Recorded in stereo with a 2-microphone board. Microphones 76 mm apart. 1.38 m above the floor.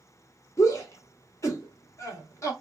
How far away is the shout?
About 1.3 m.